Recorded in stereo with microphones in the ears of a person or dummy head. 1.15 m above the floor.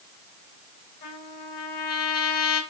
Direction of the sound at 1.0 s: 50° left (ahead or behind).